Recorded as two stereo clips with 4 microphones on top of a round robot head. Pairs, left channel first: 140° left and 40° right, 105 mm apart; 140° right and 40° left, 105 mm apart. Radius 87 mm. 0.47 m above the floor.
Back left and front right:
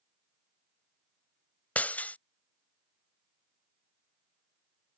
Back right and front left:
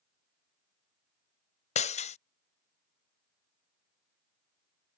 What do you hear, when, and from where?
1.8 s breaking glass: 145° right